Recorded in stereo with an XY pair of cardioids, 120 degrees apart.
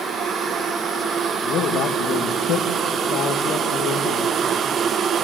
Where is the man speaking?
60° left, 2 m.